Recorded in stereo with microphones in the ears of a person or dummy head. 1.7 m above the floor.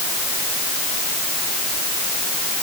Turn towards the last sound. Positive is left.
No sound to turn to.